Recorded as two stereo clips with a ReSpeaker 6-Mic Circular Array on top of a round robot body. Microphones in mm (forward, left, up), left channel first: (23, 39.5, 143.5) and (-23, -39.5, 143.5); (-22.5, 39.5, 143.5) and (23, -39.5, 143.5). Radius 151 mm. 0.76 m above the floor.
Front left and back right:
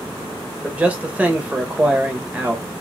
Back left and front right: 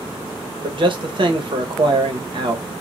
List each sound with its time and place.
0.6 s a man speaking: 45° right, 0.9 m